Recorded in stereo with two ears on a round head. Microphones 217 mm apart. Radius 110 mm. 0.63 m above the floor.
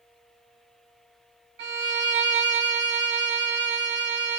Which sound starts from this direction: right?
A violin, at 1.6 s.